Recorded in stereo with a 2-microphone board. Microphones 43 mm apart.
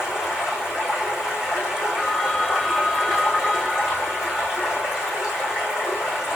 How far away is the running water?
About 4.5 m.